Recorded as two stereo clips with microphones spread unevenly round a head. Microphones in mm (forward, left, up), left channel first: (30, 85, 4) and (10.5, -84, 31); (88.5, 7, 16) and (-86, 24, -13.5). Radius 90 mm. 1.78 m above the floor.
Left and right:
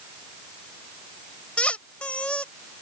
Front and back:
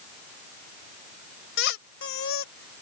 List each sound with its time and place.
1.6 s a squeak: 5° right